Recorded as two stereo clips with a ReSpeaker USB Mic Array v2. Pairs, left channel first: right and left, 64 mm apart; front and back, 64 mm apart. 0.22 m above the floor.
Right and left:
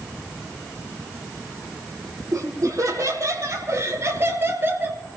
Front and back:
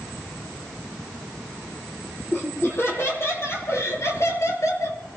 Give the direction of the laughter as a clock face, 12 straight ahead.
10 o'clock.